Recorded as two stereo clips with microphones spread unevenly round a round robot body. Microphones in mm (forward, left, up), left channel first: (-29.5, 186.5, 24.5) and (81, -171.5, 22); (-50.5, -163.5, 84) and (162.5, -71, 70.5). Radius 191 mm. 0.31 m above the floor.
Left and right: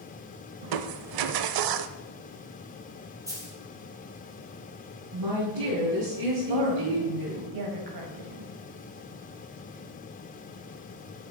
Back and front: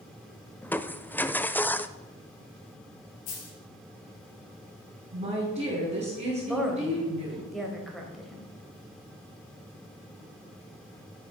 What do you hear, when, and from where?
0.6 s crushing: 70° right, 0.7 m
3.3 s a dropped coin: 155° right, 3.5 m
5.1 s a woman speaking: 35° right, 4 m
6.4 s a woman speaking: 65° right, 2 m